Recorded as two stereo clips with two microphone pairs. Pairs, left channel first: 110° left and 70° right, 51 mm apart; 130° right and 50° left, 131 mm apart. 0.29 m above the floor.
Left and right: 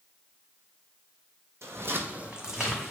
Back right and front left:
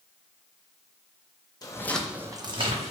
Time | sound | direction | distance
1.6 | footsteps | 70° right | 0.6 m